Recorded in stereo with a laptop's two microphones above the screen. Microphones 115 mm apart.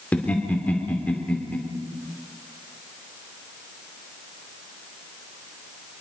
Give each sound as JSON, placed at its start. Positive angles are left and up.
{"t": 0.1, "sound": "laughter", "side_deg": 10, "distance_m": 2.5}